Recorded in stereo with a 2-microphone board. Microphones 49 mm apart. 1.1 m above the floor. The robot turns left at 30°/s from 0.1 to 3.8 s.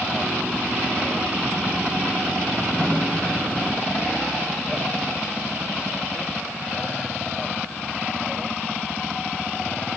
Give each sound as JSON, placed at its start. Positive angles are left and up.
{"t": 2.8, "sound": "a snare drum", "side_deg": 20, "distance_m": 5.5}